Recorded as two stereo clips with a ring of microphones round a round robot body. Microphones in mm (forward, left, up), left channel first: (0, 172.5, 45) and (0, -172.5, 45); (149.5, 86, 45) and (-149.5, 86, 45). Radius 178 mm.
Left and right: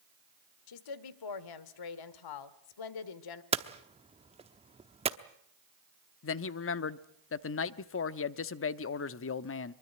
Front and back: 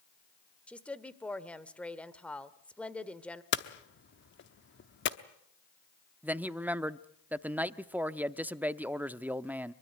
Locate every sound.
0.7 s a woman speaking: 85° left, 1.5 m
3.5 s hammering: 25° right, 1.0 m
6.2 s a man speaking: 100° left, 0.8 m